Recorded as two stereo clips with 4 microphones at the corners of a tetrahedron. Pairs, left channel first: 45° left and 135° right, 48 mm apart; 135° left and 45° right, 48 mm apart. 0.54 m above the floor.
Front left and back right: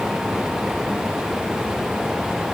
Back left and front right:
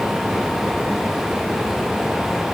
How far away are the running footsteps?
I don't hear running footsteps.